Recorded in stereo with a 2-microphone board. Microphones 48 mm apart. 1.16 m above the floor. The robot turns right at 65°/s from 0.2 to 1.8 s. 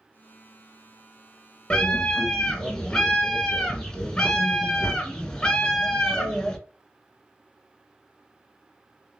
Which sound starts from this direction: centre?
A scream, at 1.7 s.